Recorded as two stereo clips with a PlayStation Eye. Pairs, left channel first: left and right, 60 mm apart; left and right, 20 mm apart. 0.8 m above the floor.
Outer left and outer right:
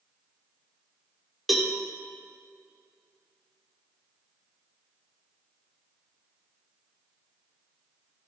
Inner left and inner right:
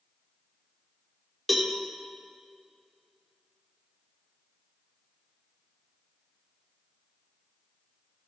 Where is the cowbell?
Centre (ahead or behind), 1.1 m.